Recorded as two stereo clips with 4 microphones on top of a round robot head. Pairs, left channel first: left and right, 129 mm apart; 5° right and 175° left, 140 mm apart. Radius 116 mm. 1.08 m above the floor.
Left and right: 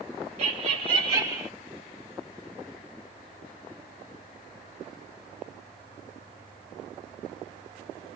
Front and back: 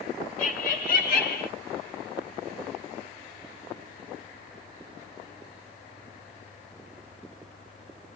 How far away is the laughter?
About 1.2 m.